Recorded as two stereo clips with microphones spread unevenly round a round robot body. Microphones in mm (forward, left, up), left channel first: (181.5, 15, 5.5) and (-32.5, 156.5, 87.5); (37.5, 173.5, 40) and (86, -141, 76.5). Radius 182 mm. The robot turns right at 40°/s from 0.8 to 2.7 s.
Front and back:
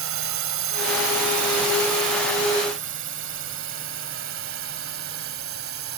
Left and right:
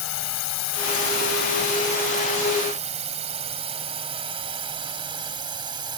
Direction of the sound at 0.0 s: 135° left.